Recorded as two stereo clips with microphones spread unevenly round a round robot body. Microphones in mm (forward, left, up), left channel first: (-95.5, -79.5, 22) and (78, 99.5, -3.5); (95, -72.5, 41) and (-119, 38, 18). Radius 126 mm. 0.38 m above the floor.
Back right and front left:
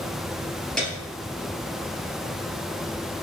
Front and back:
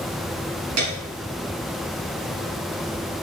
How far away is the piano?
About 3 m.